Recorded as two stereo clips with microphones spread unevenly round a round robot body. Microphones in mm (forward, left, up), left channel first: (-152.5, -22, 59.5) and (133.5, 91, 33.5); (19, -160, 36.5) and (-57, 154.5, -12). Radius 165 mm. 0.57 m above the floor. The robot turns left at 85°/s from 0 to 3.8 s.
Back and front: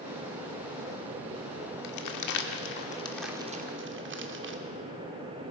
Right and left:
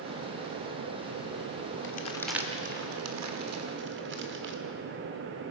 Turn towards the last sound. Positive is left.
turn(degrees=60)